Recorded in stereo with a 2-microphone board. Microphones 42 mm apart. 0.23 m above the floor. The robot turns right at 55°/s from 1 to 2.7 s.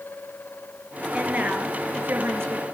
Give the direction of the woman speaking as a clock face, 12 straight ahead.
5 o'clock.